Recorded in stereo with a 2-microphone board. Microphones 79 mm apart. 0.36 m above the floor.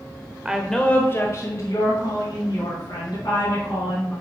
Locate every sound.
0.5 s a woman speaking: 10° right (ahead or behind), 0.8 m; by 4.1 s 75° left (ahead or behind), 4 m